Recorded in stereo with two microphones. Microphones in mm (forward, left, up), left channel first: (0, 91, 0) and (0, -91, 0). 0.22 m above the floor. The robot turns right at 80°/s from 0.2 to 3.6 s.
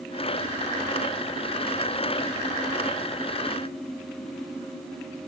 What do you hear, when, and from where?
Only background noise.